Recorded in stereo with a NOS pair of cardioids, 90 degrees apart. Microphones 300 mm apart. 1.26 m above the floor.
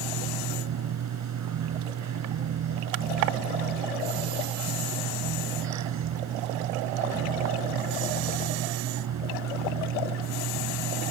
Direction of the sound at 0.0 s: 65° right.